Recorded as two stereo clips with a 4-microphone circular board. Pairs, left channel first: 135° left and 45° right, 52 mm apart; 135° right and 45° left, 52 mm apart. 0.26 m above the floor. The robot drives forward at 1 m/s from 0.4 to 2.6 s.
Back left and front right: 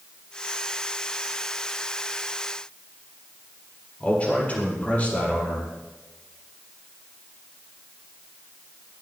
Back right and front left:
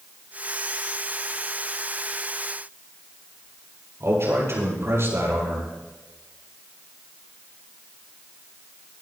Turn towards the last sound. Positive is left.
turn(degrees=75)